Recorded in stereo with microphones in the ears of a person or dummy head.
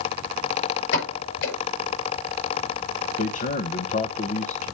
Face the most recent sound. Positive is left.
turn(degrees=45)  # may be behind; listen again after turning